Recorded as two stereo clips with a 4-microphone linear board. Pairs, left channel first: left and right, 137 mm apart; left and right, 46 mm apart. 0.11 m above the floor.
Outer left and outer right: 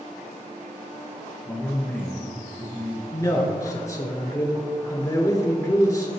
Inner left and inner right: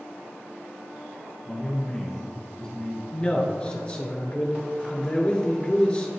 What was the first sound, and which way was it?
A man speaking, 5° left (ahead or behind).